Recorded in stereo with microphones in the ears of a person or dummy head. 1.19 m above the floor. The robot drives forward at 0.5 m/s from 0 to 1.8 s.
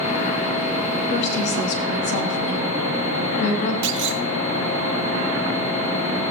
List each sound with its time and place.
1.1 s a woman speaking: 60° left (ahead or behind), 3 m; by 3.7 s 65° left (ahead or behind), 2.5 m
3.8 s a clunk: 65° right (ahead or behind), 0.8 m